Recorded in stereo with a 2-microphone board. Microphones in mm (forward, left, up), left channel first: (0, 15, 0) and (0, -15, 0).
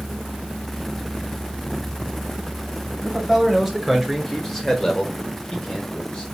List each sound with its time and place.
3.0 s a man speaking: centre (ahead or behind), 2 m; by 6.2 s 35° left (ahead or behind), 1.1 m